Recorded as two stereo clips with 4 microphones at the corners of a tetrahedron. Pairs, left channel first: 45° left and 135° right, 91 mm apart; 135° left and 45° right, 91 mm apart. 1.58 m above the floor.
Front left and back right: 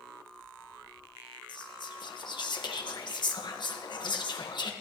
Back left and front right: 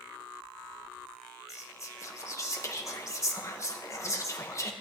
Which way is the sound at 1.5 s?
80° left.